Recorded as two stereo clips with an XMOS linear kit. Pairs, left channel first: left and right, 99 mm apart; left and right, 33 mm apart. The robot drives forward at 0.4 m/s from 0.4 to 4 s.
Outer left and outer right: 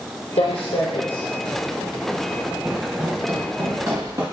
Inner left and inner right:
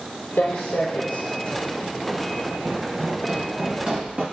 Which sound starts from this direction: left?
Footsteps, at 0.4 s.